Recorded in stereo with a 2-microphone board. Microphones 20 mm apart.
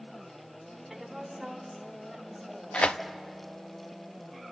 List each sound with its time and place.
0.9 s a woman speaking: 10° right (ahead or behind), 2.5 m; by 3.1 s 5° right (ahead or behind), 5.5 m
2.7 s tearing paper: 85° left, 0.7 m